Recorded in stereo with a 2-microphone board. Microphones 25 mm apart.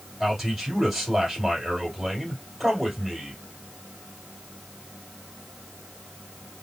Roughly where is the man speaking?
Centre.